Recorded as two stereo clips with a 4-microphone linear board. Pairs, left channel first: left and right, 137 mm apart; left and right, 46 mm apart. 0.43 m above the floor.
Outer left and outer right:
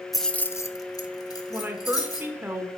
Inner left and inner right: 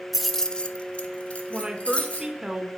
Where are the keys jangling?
Centre (ahead or behind), 0.6 m; by 2.3 s 25° left (ahead or behind), 1.9 m.